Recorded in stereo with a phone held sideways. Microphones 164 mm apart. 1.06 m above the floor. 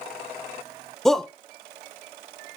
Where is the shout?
5° left (ahead or behind), 0.5 m.